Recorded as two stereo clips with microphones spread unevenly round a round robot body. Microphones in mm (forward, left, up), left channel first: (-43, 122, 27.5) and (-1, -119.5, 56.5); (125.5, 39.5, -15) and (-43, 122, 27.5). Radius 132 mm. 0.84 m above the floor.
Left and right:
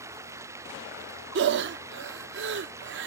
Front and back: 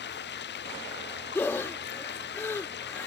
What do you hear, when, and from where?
0.0 s running water: straight ahead
1.4 s breathing: 115° right